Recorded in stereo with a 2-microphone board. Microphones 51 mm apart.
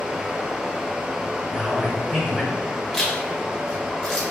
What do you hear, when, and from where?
0.0 s running water: 20° right (ahead or behind), 0.7 m
1.5 s a man speaking: 15° right (ahead or behind), 1.2 m
2.9 s a zipper: 10° left (ahead or behind), 1.3 m